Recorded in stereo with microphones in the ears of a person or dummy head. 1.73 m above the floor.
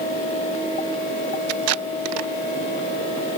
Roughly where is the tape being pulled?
Right.